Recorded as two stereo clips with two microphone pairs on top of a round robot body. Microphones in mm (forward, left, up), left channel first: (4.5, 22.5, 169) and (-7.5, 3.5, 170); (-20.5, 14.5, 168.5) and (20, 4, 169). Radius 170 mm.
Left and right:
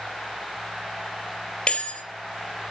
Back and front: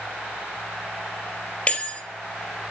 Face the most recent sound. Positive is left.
turn(degrees=105)